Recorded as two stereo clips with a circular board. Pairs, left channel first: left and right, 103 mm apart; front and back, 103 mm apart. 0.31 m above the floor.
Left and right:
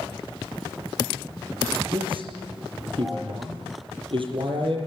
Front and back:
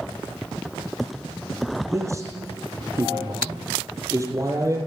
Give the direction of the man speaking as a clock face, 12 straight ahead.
4 o'clock.